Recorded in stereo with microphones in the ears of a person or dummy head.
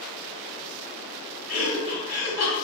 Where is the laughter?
45° left (ahead or behind), 1.0 m.